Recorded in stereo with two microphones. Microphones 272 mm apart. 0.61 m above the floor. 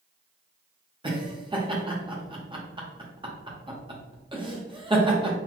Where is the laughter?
20° right (ahead or behind), 0.8 m.